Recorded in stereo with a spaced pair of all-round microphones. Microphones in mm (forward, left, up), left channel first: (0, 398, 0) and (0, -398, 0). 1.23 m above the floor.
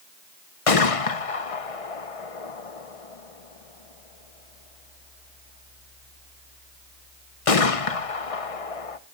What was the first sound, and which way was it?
A gunshot, 45° left (ahead or behind).